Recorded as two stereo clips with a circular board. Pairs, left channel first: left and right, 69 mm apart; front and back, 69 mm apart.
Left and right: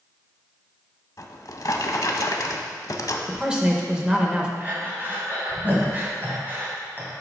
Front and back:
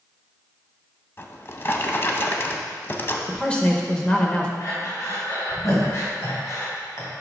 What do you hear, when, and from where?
1.2 s a drawer: 55° left, 0.6 m
3.3 s a man speaking: 40° right, 0.9 m
4.6 s breathing: 35° right, 1.9 m